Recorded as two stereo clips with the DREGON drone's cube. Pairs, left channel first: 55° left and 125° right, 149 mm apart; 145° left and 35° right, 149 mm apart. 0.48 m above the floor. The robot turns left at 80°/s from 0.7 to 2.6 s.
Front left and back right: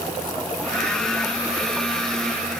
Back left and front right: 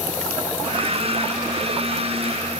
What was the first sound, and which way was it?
Only background noise.